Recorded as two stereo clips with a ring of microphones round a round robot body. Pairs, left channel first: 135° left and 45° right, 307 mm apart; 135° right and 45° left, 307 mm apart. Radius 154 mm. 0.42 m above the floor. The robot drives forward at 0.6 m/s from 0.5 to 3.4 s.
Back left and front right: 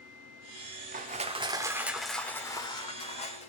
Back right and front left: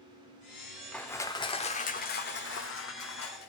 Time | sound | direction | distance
0.9 | crushing | 50° right | 1.1 m